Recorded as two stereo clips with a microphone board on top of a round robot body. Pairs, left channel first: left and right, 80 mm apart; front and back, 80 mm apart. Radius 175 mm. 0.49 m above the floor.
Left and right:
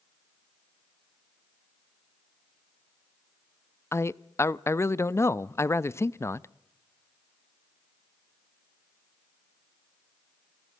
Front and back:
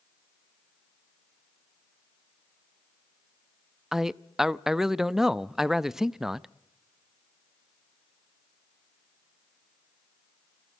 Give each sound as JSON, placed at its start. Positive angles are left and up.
{"t": 3.9, "sound": "a man speaking", "azimuth_deg": 100, "distance_m": 0.7}